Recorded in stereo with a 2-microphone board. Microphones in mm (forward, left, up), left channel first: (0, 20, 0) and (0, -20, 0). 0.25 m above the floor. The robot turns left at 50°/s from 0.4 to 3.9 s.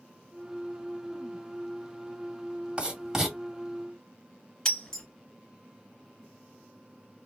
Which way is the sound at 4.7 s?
15° left (ahead or behind).